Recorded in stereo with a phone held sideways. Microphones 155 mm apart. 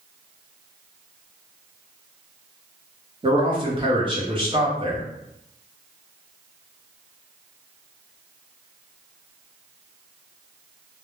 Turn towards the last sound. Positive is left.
turn(degrees=-35)  # may be behind; listen again after turning